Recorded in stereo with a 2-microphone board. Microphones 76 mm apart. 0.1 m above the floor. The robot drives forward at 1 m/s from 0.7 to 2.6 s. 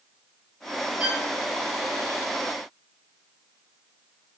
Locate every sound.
1.0 s a violin: 15° right (ahead or behind), 0.7 m; by 1.3 s 25° right (ahead or behind), 0.6 m